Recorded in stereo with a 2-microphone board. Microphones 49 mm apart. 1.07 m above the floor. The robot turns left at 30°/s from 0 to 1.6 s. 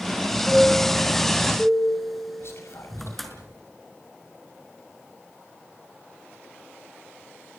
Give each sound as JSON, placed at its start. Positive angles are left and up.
{"t": 0.5, "sound": "a chime", "azimuth_deg": -150, "distance_m": 4.5}
{"t": 2.4, "sound": "whispering", "side_deg": 65, "distance_m": 6.5}